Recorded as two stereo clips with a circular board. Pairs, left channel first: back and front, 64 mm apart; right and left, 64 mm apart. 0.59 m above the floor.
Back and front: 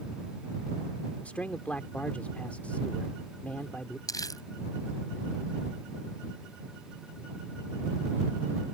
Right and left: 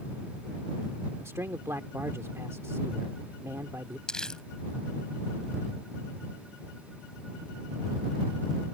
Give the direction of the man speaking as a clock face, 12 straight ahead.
8 o'clock.